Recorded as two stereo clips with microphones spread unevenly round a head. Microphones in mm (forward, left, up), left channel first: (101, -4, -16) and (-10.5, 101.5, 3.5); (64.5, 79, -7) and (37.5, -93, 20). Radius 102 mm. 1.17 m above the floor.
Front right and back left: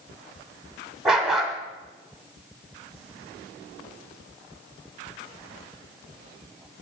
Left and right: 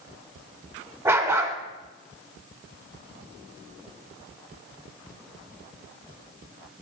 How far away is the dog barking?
About 0.9 m.